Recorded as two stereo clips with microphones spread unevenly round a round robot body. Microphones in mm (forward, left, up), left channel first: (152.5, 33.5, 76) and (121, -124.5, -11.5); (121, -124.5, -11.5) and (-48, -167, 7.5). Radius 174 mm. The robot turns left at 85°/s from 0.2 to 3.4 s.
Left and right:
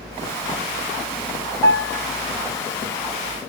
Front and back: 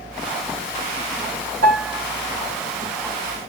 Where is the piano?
145° right, 1.1 m; by 2.0 s straight behind, 1.1 m.